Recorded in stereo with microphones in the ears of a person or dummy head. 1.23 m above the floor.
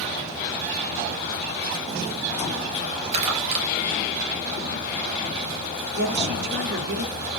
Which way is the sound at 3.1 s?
40° right (ahead or behind).